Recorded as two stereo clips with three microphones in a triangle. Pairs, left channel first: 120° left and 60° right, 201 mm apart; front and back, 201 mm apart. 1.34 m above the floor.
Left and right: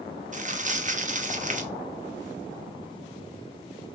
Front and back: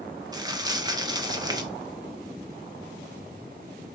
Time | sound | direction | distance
0.3 | crumpling | 110° right | 0.6 m